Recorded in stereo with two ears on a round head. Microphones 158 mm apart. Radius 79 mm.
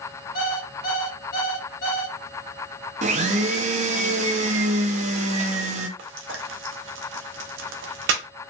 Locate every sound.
0.3 s an alarm clock: 65° left (ahead or behind), 1.3 m
3.0 s a blender: 40° right (ahead or behind), 0.5 m
6.0 s frying: 75° right (ahead or behind), 0.6 m